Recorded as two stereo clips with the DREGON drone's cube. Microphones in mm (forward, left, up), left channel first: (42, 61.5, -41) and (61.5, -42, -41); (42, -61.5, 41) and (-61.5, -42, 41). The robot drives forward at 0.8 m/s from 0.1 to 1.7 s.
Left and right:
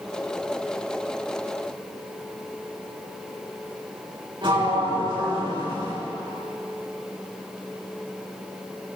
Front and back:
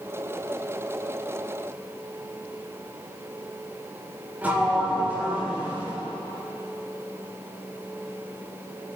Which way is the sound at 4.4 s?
115° right.